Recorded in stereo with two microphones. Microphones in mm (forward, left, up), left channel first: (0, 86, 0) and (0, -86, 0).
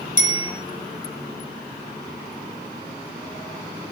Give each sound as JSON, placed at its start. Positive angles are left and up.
{"t": 0.2, "sound": "a bicycle bell", "side_deg": 50, "distance_m": 5.5}